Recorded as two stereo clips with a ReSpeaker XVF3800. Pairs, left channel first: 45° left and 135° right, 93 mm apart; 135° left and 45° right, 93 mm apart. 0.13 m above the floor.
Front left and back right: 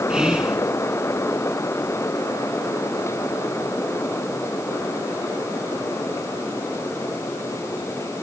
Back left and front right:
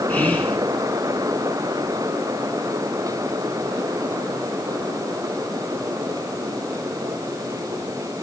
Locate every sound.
0.1 s whispering: 165° left, 1.1 m